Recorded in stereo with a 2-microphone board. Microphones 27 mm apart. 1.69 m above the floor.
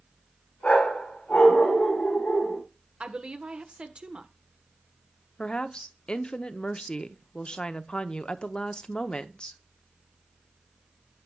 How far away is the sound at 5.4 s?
About 0.7 m.